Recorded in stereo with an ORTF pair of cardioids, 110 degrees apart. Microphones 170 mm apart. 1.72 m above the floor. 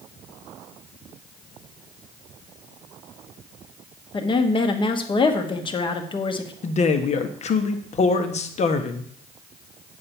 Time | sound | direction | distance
4.1 | a woman speaking | 30° left | 1.4 m
6.6 | a man speaking | 40° left | 1.3 m